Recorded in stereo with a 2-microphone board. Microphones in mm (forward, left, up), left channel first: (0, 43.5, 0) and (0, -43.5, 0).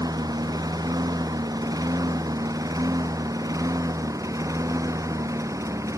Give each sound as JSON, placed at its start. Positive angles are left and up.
{"t": 0.0, "sound": "a lawn mower", "side_deg": -45}